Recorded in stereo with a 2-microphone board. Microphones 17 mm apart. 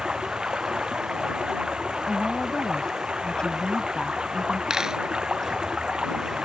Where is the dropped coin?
30° right (ahead or behind).